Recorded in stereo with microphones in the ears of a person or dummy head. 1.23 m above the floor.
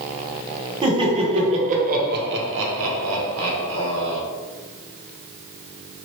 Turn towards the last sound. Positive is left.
turn(degrees=-60)  # may be behind; listen again after turning